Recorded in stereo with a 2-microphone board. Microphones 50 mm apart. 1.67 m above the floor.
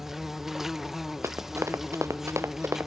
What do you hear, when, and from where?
0.0 s an insect: 10° right (ahead or behind)
1.2 s running footsteps: 80° right